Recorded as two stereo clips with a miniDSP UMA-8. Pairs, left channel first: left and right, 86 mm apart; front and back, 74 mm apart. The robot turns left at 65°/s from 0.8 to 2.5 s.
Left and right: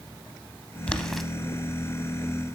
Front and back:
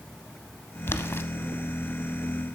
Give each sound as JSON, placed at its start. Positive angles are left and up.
{"t": 0.9, "sound": "boiling", "azimuth_deg": 25, "distance_m": 0.6}